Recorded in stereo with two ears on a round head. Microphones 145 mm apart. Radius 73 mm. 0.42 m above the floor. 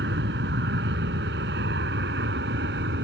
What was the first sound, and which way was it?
An aircraft, 75° right (ahead or behind).